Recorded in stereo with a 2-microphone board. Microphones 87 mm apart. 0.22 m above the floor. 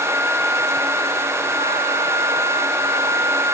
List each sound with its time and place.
Only background noise.